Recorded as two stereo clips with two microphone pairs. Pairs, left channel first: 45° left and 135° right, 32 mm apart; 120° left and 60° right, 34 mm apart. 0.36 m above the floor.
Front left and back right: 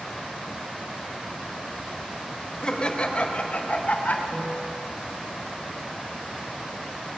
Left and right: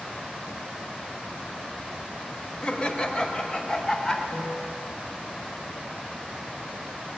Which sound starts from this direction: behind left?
A piano, at 4.3 s.